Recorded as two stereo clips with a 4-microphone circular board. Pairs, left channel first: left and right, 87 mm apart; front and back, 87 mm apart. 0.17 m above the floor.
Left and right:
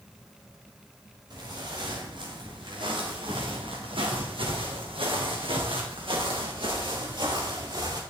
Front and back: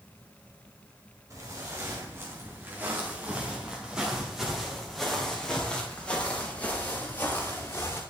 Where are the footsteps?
125° right, 3.5 m; by 8.0 s 60° right, 4.5 m.